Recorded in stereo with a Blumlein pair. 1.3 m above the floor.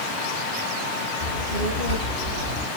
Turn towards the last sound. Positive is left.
turn(degrees=35)